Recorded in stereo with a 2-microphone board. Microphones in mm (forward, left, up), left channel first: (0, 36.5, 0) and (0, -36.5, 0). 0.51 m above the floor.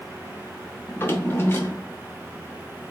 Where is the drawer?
30° left (ahead or behind), 0.9 m.